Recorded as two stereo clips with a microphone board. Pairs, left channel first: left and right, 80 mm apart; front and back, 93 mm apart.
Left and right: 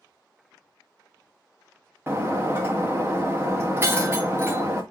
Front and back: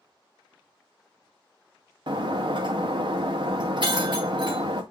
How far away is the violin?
I don't hear a violin.